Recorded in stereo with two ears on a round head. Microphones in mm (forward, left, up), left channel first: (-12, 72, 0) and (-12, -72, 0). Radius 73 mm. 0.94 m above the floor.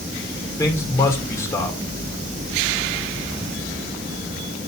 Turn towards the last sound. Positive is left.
turn(degrees=20)  # may be behind; listen again after turning